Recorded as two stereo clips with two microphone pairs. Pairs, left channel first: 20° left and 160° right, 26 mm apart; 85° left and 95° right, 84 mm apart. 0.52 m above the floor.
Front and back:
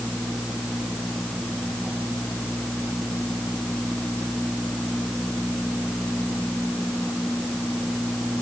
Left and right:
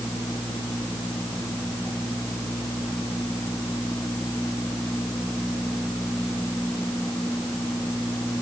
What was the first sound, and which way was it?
Only background noise.